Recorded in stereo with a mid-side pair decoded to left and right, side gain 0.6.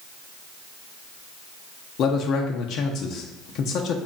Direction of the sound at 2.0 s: 60° left.